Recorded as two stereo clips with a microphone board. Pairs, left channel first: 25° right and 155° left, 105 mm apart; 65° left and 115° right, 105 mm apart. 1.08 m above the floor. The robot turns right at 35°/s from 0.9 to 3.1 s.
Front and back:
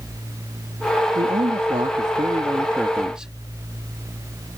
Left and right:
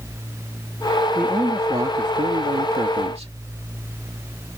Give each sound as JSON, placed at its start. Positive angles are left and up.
{"t": 1.1, "sound": "a man speaking", "azimuth_deg": 170}